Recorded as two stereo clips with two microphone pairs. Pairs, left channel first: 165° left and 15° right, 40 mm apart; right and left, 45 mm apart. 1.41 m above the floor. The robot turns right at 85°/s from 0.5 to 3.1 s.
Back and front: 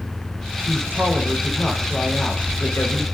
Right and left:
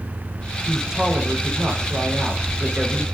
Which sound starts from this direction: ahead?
A man speaking, at 0.7 s.